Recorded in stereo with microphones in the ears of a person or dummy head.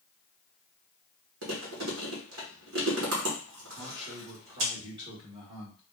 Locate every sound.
1.4 s chewing: 60° right (ahead or behind), 1.1 m
3.8 s a man speaking: 30° right (ahead or behind), 1.8 m